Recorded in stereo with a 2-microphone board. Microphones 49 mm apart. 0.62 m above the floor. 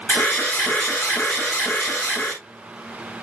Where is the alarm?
50° left (ahead or behind), 3.5 m.